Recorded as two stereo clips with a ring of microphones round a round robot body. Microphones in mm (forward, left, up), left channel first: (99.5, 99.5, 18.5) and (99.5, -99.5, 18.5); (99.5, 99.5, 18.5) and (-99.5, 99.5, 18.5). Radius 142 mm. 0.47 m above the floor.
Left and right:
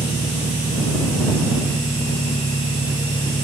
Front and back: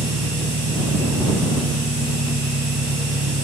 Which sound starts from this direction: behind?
An engine running, at 0.0 s.